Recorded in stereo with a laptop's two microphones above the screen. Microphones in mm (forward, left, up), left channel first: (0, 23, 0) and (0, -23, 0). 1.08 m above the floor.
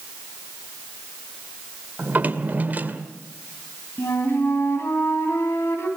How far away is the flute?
About 4 m.